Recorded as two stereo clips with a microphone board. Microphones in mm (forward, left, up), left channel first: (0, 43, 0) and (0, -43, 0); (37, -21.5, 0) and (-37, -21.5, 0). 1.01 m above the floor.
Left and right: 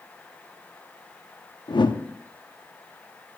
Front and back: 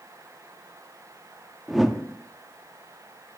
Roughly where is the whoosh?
Left.